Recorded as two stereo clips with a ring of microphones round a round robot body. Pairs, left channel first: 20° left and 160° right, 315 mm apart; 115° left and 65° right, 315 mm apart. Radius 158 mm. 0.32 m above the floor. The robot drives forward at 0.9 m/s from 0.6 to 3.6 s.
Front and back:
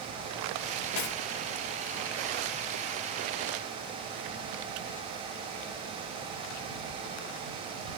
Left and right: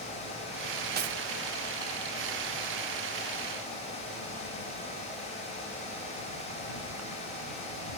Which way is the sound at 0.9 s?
10° right.